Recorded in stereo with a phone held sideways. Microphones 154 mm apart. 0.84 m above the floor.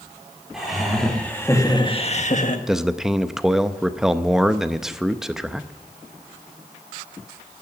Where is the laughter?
Centre (ahead or behind), 2.5 m; by 2.6 s 55° left (ahead or behind), 1.4 m.